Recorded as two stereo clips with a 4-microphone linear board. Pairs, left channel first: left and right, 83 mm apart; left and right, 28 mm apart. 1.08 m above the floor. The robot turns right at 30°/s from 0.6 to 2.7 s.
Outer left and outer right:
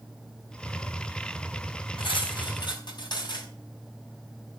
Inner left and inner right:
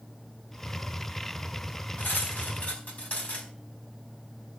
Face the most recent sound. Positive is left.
turn(degrees=55)  # may be behind; listen again after turning